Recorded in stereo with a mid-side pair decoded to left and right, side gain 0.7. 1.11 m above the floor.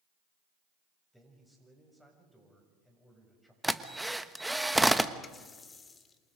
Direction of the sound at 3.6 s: 5° right.